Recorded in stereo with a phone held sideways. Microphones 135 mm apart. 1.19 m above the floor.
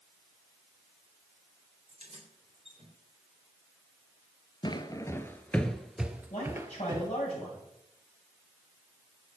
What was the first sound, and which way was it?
Keys jangling, 50° right (ahead or behind).